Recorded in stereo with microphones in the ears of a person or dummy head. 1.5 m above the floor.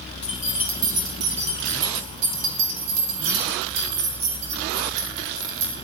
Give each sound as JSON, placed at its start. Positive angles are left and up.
{"t": 0.2, "sound": "keys jangling", "side_deg": 0, "distance_m": 0.7}